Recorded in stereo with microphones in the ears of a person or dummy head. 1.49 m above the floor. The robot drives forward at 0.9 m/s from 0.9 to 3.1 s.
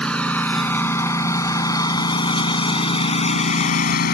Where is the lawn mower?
15° left (ahead or behind); by 4.1 s 65° left (ahead or behind).